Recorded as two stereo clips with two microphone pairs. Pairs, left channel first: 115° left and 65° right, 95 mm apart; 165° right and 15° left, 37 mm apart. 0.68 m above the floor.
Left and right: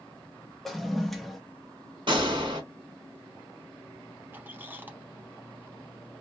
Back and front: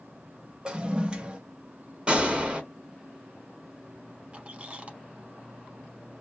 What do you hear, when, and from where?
0.7 s a toilet flushing: 25° left, 0.6 m
2.1 s a gunshot: 45° right, 1.5 m
4.3 s a squeak: 15° right, 0.7 m